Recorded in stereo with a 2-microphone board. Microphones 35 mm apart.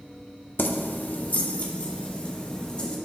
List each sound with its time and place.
0.6 s keys jangling: 75° left (ahead or behind), 0.8 m; by 2.9 s 30° left (ahead or behind), 2.5 m